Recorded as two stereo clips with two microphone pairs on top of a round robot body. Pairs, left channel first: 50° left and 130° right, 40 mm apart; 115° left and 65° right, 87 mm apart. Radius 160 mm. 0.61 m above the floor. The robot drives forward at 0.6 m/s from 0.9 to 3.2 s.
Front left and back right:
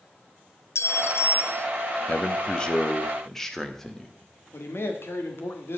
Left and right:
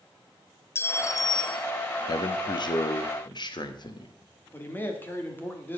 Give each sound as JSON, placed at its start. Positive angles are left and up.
{"t": 0.8, "sound": "a clink", "azimuth_deg": 55, "distance_m": 0.6}
{"t": 2.1, "sound": "a man speaking", "azimuth_deg": 105, "distance_m": 1.2}
{"t": 4.5, "sound": "a man speaking", "azimuth_deg": 50, "distance_m": 2.0}